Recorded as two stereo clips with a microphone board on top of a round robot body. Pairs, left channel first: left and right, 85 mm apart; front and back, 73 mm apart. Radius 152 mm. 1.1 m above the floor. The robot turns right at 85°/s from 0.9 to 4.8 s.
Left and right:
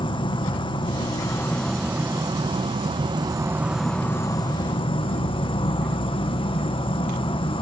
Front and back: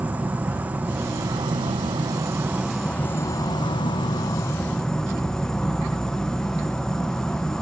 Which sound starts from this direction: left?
An insect, at 0.0 s.